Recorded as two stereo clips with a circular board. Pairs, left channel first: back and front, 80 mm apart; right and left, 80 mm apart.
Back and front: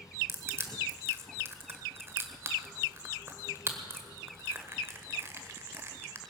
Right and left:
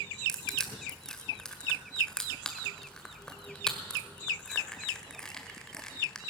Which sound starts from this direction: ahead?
Crushing, at 0.3 s.